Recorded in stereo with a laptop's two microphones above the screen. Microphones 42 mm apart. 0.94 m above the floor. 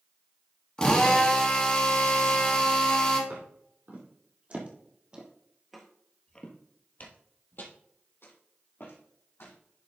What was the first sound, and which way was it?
A drill, 20° left (ahead or behind).